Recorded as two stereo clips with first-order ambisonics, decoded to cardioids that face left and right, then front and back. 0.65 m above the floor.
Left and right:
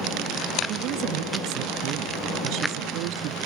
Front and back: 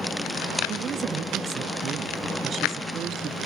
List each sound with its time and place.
0.7 s a woman speaking: 125° right; by 3.4 s 115° right